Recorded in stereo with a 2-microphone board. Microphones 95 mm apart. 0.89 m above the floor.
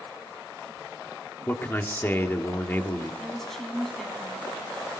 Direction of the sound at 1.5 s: 25° left (ahead or behind).